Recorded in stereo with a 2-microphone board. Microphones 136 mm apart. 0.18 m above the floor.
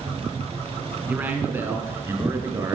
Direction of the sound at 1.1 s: 10° right (ahead or behind).